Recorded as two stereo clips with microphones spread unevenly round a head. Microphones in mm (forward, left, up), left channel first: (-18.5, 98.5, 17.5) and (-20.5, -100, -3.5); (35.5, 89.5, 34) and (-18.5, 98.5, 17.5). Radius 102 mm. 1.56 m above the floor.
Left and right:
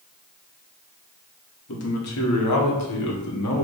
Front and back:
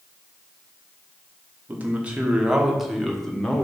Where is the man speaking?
110° left, 1.6 m; by 3.6 s 70° left, 1.7 m.